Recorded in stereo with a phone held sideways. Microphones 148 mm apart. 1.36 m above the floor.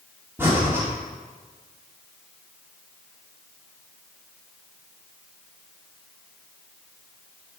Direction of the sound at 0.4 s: 15° right (ahead or behind).